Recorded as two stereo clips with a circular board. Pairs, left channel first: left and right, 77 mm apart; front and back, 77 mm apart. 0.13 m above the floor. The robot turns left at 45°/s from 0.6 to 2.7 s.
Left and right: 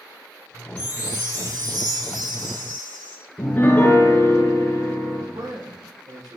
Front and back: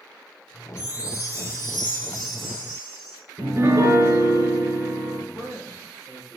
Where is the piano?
145° left, 2 m.